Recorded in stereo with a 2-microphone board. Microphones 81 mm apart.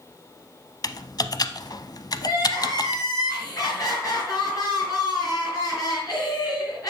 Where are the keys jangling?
I don't hear keys jangling.